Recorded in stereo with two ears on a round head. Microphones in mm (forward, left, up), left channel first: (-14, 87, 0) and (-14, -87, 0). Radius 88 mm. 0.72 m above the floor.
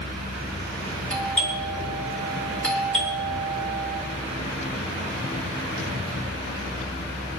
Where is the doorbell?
5° left (ahead or behind), 4 m.